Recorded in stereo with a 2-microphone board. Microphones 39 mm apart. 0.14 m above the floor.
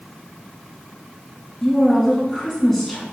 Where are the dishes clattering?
No dishes clattering in this recording.